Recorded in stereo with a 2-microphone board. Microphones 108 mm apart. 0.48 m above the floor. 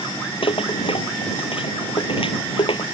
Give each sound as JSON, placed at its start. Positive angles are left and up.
{"t": 0.4, "sound": "a rattle", "side_deg": 55}